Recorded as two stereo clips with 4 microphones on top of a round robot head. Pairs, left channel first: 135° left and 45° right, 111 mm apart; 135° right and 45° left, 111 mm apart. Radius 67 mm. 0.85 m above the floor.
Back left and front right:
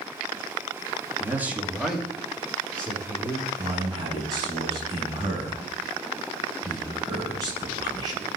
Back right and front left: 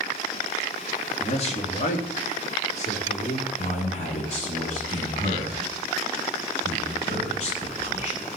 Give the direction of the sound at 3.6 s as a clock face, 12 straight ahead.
3 o'clock.